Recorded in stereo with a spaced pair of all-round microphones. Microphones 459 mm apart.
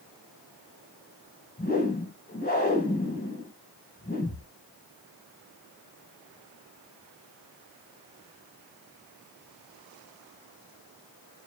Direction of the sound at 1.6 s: 20° left (ahead or behind).